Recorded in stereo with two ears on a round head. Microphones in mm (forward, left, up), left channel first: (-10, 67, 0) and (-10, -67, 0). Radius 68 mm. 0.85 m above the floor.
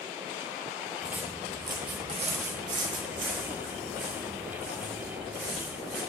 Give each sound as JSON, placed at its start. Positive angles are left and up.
{"t": 1.0, "sound": "footsteps", "side_deg": -5, "distance_m": 2.0}